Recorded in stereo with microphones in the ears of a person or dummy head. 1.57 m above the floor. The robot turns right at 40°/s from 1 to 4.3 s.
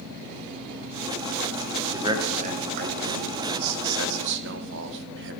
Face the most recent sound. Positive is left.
turn(degrees=-60)  # may be behind; listen again after turning